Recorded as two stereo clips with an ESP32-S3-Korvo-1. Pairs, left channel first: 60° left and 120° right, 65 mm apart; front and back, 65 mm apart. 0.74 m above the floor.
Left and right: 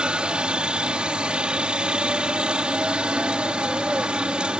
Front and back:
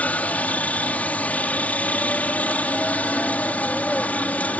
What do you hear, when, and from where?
0.0 s a helicopter: 50° right